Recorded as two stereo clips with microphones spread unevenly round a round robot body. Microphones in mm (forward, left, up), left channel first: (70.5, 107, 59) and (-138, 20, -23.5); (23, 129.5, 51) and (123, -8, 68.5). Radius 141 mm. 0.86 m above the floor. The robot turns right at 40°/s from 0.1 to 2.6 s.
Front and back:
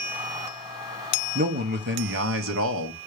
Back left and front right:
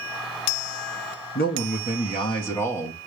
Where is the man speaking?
155° left, 1.2 m; by 3.0 s 155° right, 1.2 m.